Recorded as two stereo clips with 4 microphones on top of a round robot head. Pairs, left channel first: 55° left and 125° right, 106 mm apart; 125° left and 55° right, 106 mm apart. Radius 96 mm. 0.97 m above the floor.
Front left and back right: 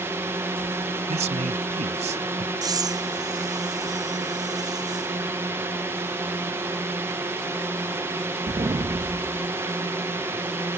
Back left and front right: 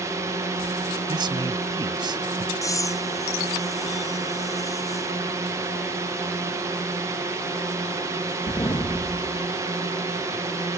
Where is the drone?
80° right.